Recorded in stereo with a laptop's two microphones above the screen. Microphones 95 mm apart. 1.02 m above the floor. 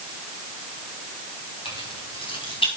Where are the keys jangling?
85° left, 4 m.